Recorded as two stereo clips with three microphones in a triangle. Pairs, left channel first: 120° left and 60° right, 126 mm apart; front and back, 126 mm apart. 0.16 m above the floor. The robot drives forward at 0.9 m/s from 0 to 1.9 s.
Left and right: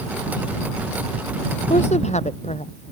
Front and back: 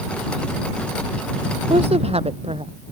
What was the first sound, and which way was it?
A woman speaking, 145° left.